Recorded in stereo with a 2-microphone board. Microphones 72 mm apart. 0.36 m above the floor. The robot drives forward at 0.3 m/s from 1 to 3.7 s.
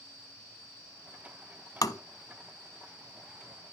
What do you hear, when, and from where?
1.8 s tapping: 55° left (ahead or behind), 0.6 m; by 2.0 s 50° left (ahead or behind), 0.7 m